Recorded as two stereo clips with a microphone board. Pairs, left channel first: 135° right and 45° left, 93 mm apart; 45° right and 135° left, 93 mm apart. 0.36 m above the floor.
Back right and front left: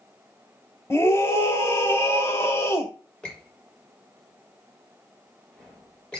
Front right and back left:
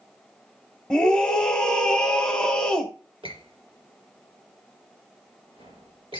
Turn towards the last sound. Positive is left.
turn(degrees=145)